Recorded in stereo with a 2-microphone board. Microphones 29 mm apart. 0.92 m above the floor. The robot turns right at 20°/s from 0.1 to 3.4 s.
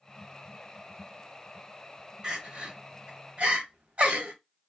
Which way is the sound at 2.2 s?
30° right (ahead or behind).